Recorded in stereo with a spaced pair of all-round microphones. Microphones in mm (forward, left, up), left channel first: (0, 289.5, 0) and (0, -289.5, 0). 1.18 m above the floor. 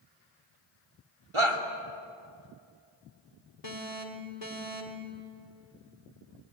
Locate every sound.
1.3 s a shout: 55° right (ahead or behind), 2.5 m
3.6 s an alarm: 85° left, 3 m